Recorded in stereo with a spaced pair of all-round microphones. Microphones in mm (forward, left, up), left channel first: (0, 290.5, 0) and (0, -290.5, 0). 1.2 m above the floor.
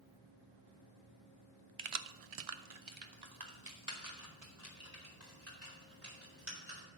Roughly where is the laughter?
I don't hear laughter.